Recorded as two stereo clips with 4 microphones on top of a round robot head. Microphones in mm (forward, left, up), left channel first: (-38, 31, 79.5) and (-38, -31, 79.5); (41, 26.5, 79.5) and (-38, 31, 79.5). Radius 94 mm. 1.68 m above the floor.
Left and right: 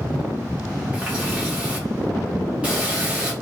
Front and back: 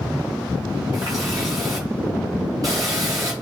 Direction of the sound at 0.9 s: 145° right.